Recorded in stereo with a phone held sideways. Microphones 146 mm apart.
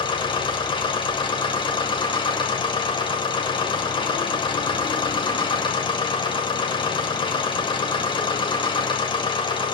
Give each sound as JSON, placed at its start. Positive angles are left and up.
{"t": 0.0, "sound": "a machine running", "side_deg": 35, "distance_m": 1.5}